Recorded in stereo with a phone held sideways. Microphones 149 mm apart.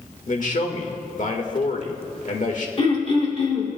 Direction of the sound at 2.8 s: 45° left (ahead or behind).